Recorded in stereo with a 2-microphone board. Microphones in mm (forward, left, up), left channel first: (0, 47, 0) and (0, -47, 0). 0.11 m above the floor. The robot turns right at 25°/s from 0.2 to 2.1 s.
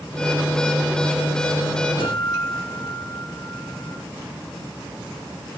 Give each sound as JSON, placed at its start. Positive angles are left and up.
{"t": 2.0, "sound": "a guitar", "side_deg": 60, "distance_m": 3.0}